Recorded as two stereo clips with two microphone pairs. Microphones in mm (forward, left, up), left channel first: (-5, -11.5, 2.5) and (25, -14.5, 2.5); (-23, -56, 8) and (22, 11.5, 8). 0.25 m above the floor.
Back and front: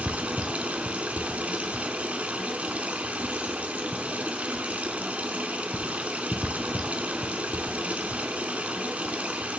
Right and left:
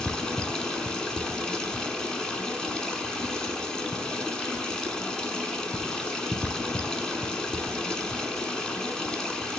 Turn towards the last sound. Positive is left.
turn(degrees=-45)